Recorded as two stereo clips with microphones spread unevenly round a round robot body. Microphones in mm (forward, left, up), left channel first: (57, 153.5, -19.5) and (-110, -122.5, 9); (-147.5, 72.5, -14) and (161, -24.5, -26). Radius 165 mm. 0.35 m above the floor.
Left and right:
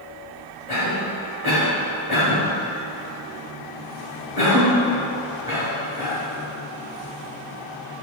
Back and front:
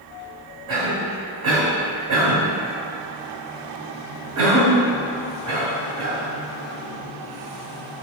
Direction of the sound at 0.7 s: 35° right.